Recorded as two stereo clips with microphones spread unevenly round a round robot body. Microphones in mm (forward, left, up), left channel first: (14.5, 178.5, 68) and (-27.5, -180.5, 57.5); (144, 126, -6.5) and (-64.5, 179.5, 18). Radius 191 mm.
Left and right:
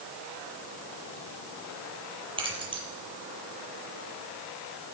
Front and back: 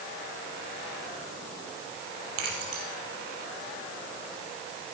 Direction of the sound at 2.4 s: 175° right.